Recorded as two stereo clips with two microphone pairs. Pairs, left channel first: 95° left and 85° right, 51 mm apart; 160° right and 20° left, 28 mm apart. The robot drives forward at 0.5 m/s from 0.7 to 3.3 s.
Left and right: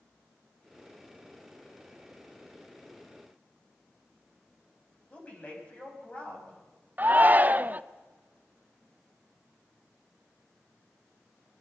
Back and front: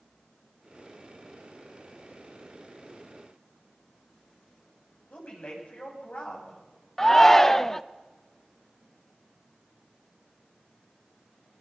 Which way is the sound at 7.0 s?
90° right.